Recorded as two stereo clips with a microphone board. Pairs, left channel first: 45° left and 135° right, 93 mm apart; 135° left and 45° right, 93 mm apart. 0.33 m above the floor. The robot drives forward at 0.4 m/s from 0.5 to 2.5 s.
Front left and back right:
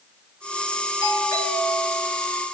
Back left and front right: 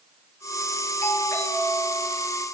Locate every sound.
1.0 s a doorbell: 85° left, 6 m; by 2.1 s 90° left, 6 m